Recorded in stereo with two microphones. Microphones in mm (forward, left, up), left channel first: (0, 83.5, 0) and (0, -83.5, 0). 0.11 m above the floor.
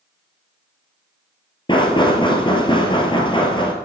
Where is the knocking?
30° left (ahead or behind), 1.5 m.